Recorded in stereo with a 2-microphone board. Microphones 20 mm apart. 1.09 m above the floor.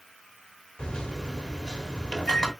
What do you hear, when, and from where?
0.8 s a microwave: 45° left (ahead or behind), 1.7 m